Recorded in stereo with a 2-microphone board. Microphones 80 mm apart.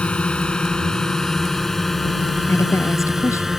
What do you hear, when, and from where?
0.0 s a drone: 15° left (ahead or behind); by 3.6 s 5° right (ahead or behind)
2.5 s a woman speaking: 40° left (ahead or behind)